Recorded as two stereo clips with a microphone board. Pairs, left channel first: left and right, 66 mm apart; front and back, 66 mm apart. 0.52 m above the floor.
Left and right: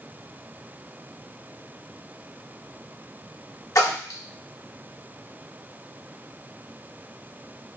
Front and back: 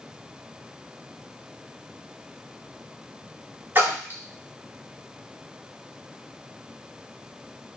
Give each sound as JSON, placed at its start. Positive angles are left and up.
{"t": 3.8, "sound": "a splash", "azimuth_deg": 125, "distance_m": 1.0}